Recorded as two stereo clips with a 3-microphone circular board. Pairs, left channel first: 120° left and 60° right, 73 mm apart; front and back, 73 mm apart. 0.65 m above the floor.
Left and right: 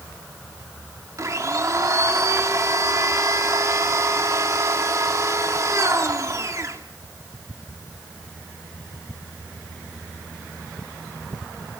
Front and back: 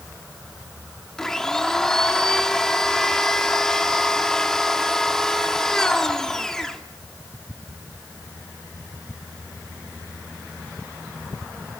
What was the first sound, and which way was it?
A blender, 80° right.